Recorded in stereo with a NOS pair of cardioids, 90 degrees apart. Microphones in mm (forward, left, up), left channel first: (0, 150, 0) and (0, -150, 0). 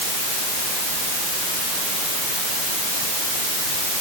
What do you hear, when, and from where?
Only background noise.